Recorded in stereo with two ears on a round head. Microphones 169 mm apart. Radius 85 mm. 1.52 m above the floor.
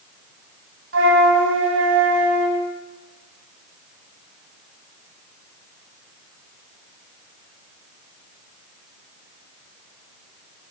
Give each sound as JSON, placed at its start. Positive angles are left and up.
{"t": 0.9, "sound": "a flute", "side_deg": -70, "distance_m": 3.5}